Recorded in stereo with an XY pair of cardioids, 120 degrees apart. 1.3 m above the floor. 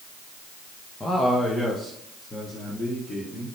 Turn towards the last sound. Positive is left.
turn(degrees=15)